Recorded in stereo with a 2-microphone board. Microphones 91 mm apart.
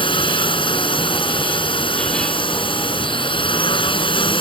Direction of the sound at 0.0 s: 65° left (ahead or behind).